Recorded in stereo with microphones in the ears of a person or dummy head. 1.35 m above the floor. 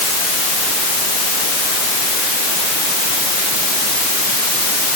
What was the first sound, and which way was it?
Only background noise.